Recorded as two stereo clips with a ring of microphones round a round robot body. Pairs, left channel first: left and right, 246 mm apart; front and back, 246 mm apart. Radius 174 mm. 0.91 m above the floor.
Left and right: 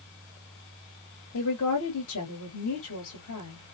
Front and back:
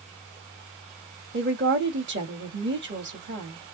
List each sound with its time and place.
1.3 s a woman speaking: 135° left, 2 m